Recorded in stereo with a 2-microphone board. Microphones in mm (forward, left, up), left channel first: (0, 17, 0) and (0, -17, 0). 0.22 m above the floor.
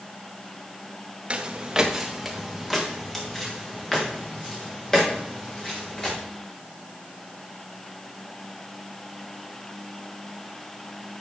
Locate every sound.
1.3 s footsteps: 30° right (ahead or behind), 1.7 m; by 6.2 s 25° left (ahead or behind), 7.5 m